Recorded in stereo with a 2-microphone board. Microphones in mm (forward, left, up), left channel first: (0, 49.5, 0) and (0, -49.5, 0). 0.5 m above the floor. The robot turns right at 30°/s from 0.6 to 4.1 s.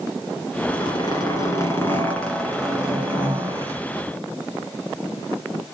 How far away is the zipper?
About 2 m.